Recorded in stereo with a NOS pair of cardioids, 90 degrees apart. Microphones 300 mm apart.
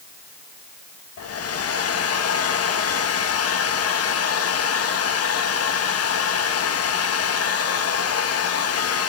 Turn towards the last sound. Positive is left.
turn(degrees=55)